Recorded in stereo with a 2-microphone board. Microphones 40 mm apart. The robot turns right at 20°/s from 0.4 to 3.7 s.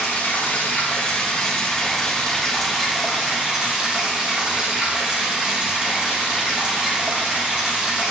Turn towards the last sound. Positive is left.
turn(degrees=-160)